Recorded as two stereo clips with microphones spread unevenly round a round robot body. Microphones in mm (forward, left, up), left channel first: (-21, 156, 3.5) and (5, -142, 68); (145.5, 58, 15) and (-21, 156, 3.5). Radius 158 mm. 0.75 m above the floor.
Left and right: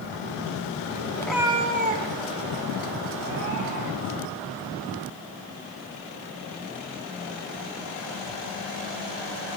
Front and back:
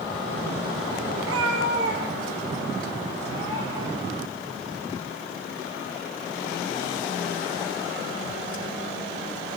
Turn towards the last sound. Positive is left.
turn(degrees=-130)